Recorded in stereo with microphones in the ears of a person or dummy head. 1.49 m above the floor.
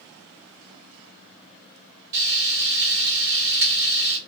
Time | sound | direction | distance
2.1 | frying | 20° right (ahead or behind) | 1.6 m